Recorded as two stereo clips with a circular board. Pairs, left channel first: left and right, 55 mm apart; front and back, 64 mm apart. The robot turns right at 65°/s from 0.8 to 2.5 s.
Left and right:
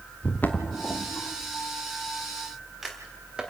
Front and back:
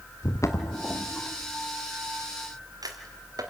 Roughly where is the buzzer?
No buzzer in this recording.